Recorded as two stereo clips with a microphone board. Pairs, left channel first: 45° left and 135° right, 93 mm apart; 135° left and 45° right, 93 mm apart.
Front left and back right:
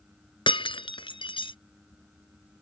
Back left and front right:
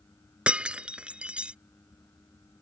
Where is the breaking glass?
30° left.